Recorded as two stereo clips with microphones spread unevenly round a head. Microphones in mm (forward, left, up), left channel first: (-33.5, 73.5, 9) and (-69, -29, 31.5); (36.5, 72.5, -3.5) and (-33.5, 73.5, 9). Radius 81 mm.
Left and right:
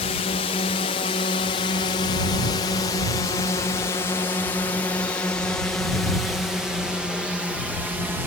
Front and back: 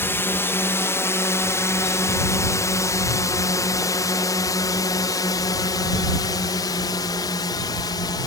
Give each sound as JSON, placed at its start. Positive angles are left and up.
{"t": 0.0, "sound": "a drone", "azimuth_deg": 50}